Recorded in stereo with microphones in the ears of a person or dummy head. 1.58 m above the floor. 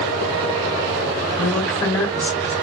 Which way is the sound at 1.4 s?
Centre (ahead or behind).